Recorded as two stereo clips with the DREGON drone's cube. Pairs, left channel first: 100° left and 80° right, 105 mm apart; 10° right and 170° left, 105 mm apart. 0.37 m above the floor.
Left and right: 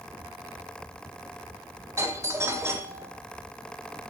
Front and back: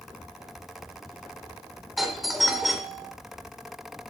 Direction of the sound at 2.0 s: 105° right.